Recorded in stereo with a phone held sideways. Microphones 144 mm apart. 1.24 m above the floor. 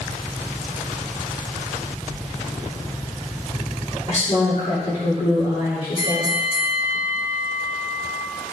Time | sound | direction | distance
4.1 | a woman speaking | 65° left (ahead or behind) | 3 m
6.0 | a bell | 30° right (ahead or behind) | 1.2 m